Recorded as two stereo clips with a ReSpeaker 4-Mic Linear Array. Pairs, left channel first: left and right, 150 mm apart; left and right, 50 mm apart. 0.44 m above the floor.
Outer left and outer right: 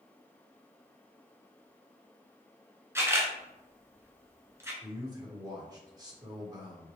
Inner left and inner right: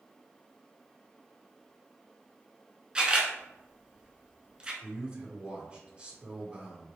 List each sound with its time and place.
3.0 s a camera shutter: 20° right (ahead or behind), 0.9 m
4.8 s a man speaking: 25° right (ahead or behind), 1.1 m